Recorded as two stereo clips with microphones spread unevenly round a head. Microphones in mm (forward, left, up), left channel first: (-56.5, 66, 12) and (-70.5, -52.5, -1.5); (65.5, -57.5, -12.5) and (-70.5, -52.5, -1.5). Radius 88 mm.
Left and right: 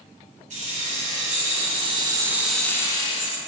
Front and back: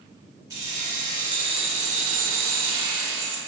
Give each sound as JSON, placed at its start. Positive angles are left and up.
{"t": 0.5, "sound": "keys jangling", "azimuth_deg": -115, "distance_m": 1.7}